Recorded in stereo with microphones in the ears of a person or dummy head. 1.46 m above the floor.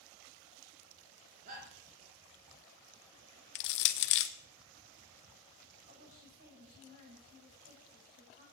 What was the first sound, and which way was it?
A shout, 45° right (ahead or behind).